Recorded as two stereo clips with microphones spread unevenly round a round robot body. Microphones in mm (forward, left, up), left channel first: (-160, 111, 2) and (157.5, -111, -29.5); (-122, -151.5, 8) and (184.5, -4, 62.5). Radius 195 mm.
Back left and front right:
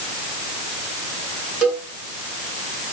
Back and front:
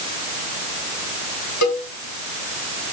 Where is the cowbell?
120° right, 3.5 m.